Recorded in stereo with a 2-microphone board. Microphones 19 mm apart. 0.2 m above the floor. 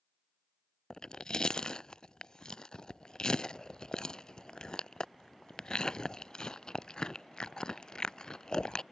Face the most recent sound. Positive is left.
turn(degrees=50)  # may be behind; listen again after turning